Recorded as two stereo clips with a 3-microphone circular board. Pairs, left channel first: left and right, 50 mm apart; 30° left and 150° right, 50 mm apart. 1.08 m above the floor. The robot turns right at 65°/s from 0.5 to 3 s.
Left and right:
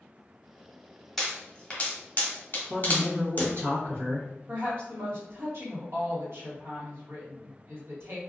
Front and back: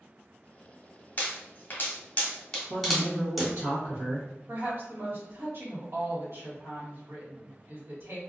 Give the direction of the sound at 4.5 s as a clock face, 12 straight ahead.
4 o'clock.